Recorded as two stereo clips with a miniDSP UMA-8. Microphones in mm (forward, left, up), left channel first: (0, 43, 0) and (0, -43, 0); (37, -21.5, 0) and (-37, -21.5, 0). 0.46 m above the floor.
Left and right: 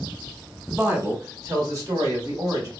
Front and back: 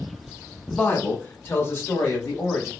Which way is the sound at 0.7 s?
45° right.